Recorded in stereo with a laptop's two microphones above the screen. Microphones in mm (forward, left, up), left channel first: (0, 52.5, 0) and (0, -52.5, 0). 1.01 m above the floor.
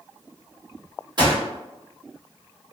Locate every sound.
1.2 s a gunshot: 45° right (ahead or behind), 1.1 m